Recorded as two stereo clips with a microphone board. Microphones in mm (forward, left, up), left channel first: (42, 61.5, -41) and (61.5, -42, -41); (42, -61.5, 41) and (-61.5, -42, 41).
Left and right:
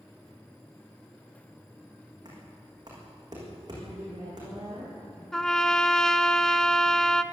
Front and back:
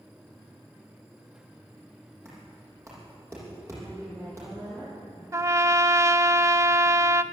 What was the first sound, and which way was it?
Knocking, 130° right.